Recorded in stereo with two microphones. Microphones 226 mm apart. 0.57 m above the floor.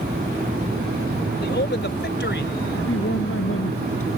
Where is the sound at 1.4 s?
50° left (ahead or behind); by 2.6 s 55° left (ahead or behind).